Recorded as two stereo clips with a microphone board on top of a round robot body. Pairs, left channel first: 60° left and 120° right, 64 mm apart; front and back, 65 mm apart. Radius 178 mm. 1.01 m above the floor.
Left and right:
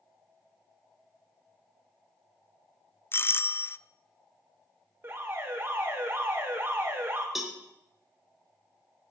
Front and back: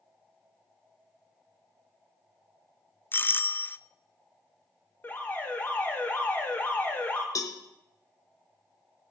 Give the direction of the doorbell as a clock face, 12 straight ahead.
11 o'clock.